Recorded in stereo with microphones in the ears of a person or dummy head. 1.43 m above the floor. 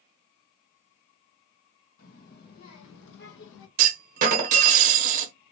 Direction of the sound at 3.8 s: 40° right (ahead or behind).